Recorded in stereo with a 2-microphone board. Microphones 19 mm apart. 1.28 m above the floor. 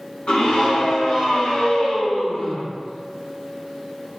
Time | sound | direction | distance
0.3 | a scream | 65° left (ahead or behind) | 1.5 m